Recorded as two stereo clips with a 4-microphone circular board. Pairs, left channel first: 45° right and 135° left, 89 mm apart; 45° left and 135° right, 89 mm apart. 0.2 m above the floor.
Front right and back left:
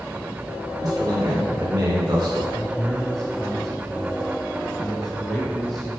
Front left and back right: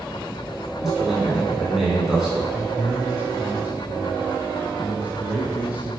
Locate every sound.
0.8 s a man speaking: 145° left, 2 m
2.5 s a man speaking: 120° right, 1.2 m